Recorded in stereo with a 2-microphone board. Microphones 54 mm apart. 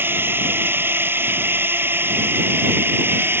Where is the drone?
40° right (ahead or behind).